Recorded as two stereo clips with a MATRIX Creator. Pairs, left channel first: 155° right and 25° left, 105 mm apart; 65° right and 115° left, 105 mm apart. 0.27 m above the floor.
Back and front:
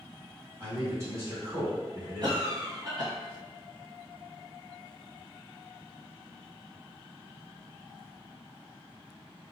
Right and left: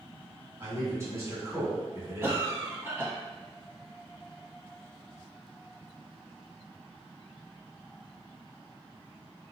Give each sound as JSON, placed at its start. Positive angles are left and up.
{"t": 0.6, "sound": "a man speaking", "azimuth_deg": 70, "distance_m": 1.7}
{"t": 2.2, "sound": "a cough", "azimuth_deg": 50, "distance_m": 1.5}